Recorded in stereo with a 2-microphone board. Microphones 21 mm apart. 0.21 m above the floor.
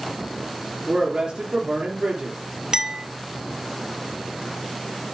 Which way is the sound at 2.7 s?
40° right (ahead or behind).